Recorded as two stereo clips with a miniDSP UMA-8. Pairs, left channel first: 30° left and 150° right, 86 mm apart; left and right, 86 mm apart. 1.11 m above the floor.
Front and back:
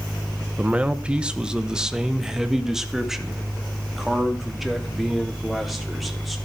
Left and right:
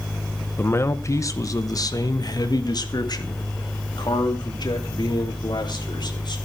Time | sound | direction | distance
0.6 | a man speaking | 145° left | 0.9 m